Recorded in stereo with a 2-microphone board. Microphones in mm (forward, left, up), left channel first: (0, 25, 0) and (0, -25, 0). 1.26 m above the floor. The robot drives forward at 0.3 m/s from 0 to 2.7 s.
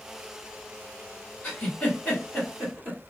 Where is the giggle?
30° left (ahead or behind), 1.7 m; by 3.0 s 25° left (ahead or behind), 2.0 m.